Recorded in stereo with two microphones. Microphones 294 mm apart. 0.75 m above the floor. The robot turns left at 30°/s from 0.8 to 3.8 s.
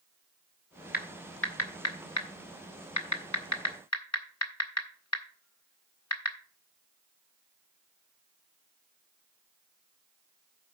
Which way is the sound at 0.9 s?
30° left (ahead or behind).